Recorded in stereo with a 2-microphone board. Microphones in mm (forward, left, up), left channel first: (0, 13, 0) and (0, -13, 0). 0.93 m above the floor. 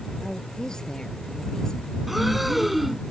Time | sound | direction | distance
0.2 | a woman speaking | 30° left (ahead or behind) | ?
2.1 | breathing | 10° right (ahead or behind) | ?